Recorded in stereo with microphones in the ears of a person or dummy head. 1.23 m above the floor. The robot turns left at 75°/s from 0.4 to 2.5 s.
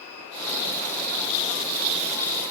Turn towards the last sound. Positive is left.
No sound to turn to.